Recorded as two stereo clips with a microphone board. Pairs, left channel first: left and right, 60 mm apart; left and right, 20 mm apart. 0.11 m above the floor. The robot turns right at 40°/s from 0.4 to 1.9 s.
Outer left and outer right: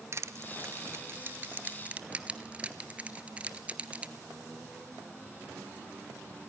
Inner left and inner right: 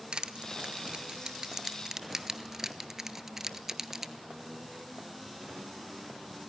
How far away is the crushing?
About 0.8 m.